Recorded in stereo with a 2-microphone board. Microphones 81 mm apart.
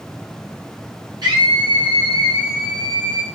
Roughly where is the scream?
Right.